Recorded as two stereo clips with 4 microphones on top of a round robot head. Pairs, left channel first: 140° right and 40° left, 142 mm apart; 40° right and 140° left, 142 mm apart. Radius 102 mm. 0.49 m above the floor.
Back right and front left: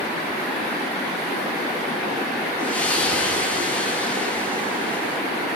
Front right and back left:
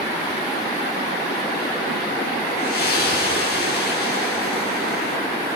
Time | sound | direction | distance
2.6 | a splash | 55° right | 8 m